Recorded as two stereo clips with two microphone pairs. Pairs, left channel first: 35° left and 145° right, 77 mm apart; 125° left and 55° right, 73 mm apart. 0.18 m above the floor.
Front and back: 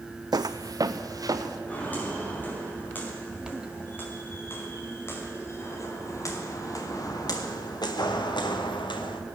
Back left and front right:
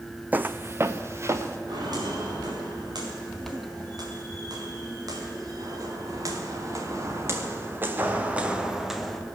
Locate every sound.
0.3 s footsteps: 120° right, 0.5 m; by 1.6 s 105° right, 2.0 m
1.7 s footsteps: 35° right, 7 m; by 9.2 s 40° left, 2 m